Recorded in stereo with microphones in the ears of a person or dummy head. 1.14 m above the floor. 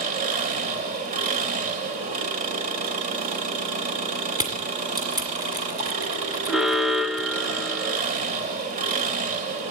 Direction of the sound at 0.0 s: 40° right (ahead or behind).